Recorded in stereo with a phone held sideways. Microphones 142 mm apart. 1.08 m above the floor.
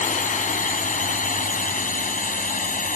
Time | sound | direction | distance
0.0 | a drone | 60° left (ahead or behind) | ?